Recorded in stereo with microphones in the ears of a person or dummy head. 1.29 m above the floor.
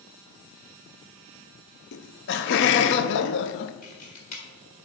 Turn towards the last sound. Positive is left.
turn(degrees=50)  # may be behind; listen again after turning